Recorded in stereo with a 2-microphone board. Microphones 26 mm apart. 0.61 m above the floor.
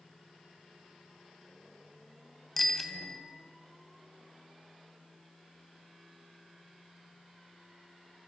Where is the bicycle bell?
5° left (ahead or behind), 2.5 m.